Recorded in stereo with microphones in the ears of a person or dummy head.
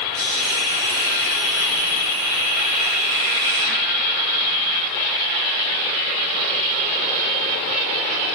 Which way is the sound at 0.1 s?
20° right (ahead or behind).